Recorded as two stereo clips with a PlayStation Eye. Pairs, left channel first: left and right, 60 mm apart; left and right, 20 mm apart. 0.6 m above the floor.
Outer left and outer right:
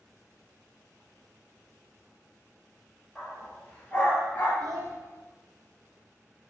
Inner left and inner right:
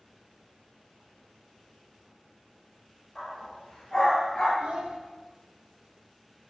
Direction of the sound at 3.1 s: 10° left (ahead or behind).